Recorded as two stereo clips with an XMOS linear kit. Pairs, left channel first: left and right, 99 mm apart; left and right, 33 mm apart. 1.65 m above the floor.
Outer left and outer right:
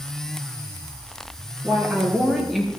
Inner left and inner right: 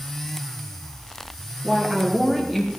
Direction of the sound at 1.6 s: 20° right (ahead or behind).